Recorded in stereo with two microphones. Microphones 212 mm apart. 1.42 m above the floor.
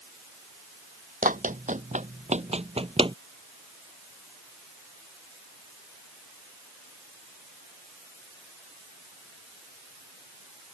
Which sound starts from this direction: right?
Running footsteps, at 1.2 s.